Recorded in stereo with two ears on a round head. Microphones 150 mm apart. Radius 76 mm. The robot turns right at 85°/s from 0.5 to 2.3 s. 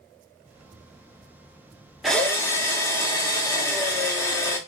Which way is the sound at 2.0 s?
Centre (ahead or behind).